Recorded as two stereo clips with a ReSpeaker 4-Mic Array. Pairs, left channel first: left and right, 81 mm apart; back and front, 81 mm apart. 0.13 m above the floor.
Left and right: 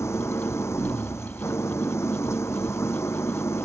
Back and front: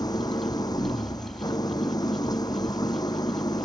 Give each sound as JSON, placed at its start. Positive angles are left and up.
{"t": 0.0, "sound": "an engine running", "azimuth_deg": 145}